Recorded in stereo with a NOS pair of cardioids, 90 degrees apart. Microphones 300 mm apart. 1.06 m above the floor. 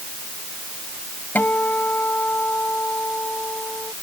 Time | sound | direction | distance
1.4 | a guitar | 5° left | ?